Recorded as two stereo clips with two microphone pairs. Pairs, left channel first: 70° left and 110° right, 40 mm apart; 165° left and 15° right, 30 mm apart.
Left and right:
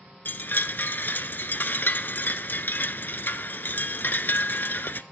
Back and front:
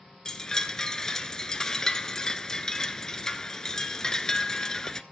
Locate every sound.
0.2 s a chime: 100° left, 0.5 m